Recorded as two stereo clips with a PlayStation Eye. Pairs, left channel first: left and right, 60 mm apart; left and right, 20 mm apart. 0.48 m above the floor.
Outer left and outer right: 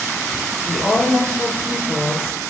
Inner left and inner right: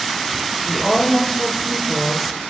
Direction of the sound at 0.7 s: 10° left (ahead or behind).